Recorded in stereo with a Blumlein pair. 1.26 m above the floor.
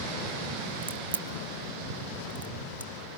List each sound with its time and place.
0.8 s a crack: 70° right, 1.0 m